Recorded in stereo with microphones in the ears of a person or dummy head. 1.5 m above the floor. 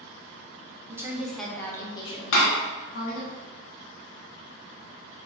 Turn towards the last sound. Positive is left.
turn(degrees=80)